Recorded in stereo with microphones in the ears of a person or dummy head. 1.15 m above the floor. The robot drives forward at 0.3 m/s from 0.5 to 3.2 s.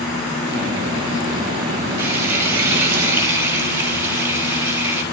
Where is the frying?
80° right, 6.5 m.